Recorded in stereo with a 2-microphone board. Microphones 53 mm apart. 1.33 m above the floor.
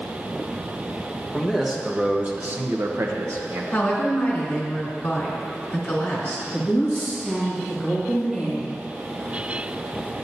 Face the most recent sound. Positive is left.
turn(degrees=0)  # may be behind; listen again after turning